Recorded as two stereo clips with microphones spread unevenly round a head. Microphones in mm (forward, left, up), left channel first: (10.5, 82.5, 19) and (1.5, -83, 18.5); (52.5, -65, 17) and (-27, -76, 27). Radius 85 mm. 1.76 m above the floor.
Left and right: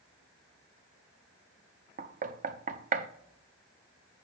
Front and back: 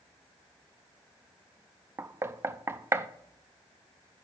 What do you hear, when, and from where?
2.0 s knocking: 125° right, 0.6 m